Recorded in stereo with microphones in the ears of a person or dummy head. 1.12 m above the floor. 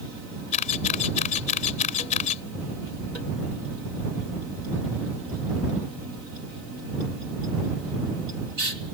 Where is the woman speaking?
No woman speaking in this recording.